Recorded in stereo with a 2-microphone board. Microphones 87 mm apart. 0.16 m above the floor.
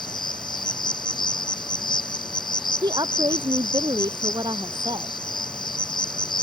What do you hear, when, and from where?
0.0 s an insect: 60° left (ahead or behind)
2.8 s a woman speaking: 55° right (ahead or behind)